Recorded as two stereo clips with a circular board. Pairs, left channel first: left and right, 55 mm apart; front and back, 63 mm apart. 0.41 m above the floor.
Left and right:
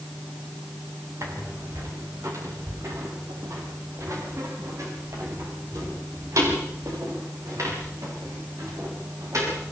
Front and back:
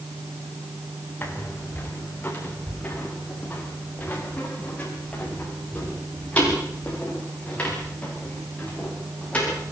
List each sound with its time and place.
1.2 s footsteps: 60° right, 6 m; by 9.6 s 70° right, 12 m